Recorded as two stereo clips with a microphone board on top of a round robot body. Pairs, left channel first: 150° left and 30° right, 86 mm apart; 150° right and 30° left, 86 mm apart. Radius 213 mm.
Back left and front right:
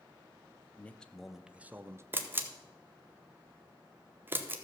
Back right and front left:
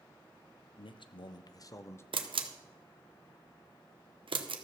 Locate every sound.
0.8 s a man speaking: 140° right, 0.8 m; by 2.0 s 90° right, 0.9 m
2.1 s a camera shutter: 35° left, 1.2 m